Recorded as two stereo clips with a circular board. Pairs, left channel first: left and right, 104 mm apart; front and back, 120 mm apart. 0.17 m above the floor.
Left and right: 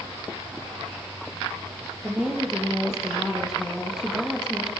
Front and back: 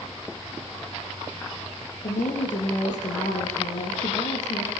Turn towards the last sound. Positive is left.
turn(degrees=-5)